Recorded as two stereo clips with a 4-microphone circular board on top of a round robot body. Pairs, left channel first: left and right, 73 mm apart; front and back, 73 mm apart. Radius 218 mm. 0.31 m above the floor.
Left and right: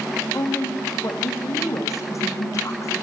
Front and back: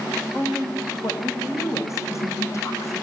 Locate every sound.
0.3 s a woman speaking: 45° left, 2.5 m